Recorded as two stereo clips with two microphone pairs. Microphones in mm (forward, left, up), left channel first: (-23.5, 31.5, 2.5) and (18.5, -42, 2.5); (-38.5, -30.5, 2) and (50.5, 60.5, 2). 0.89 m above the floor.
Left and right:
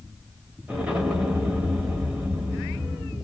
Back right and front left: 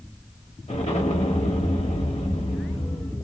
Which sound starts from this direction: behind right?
An explosion, at 0.7 s.